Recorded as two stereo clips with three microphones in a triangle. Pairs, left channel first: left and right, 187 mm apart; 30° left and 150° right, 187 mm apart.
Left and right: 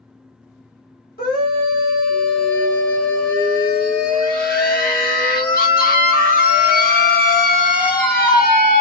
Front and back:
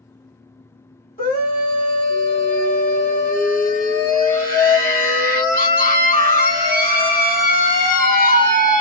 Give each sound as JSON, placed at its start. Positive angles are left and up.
{"t": 1.2, "sound": "a scream", "azimuth_deg": 60, "distance_m": 1.5}